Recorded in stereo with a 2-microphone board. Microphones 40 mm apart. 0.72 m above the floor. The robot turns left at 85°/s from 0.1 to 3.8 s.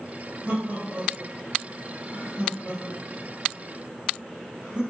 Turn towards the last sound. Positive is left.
turn(degrees=-30)  # may be behind; listen again after turning